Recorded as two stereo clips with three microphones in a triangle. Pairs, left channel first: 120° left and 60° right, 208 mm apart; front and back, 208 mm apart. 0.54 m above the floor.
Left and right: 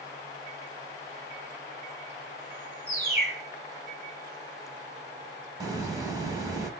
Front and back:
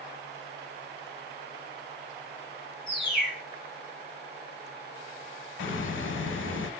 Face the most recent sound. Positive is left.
turn(degrees=10)